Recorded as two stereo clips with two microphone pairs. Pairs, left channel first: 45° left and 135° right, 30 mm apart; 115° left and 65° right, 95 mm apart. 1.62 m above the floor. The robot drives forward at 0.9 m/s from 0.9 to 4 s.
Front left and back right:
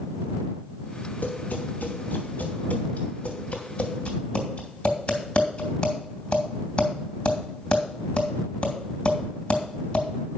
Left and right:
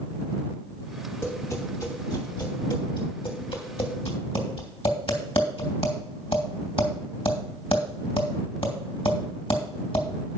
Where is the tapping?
55° left, 3.5 m; by 10.1 s 100° left, 2.5 m.